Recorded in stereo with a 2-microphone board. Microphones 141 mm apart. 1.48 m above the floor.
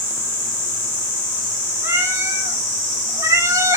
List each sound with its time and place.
1.8 s a cat meowing: 20° right (ahead or behind), 3 m